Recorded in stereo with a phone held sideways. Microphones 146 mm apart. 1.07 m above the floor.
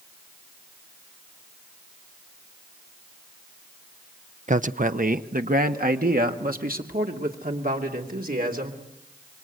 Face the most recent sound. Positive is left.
turn(degrees=-80)